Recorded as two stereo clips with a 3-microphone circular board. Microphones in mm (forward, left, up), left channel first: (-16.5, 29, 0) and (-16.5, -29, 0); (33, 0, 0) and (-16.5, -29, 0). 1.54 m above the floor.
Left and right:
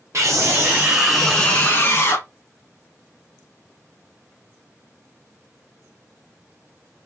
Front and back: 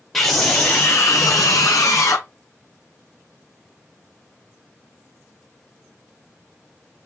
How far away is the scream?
About 0.8 m.